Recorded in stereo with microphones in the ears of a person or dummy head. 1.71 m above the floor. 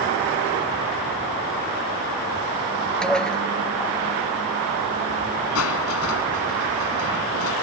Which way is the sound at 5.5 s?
80° left.